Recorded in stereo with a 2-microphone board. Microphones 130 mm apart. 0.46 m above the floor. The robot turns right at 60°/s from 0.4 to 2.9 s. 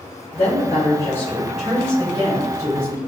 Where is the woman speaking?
115° left, 1.4 m; by 3.0 s 95° right, 1.4 m.